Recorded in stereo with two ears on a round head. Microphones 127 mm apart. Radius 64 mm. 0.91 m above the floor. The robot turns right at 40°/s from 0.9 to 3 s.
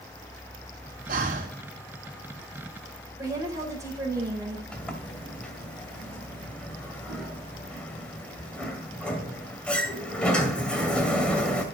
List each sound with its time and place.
1.1 s breathing: 65° right (ahead or behind), 2.0 m; by 1.6 s 55° right (ahead or behind), 2.0 m
3.2 s a woman speaking: 25° right (ahead or behind), 5 m
4.7 s a sliding door: 10° left (ahead or behind), 2 m